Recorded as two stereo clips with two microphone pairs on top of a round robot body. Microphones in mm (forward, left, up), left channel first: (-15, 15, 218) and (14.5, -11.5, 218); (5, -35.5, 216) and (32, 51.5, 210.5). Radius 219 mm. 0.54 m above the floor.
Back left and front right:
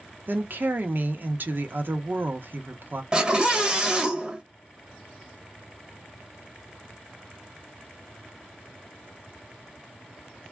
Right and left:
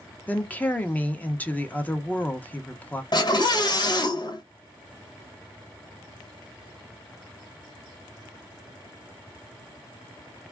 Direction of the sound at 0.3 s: 35° right.